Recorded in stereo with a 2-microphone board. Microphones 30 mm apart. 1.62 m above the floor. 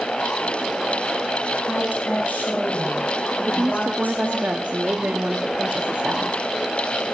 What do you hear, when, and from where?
1.7 s a woman speaking: 90° left, 8 m
3.4 s a woman speaking: 75° right (ahead or behind), 0.9 m